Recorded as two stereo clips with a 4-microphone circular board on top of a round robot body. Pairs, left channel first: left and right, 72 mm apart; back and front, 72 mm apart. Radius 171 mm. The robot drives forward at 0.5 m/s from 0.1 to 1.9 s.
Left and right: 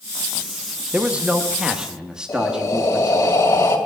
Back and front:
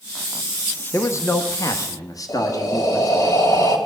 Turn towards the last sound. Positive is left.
turn(degrees=140)